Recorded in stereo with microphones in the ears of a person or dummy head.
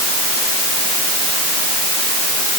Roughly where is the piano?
I don't hear a piano.